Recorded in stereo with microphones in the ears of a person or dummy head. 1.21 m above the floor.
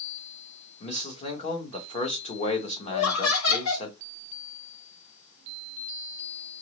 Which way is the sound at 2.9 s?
80° left.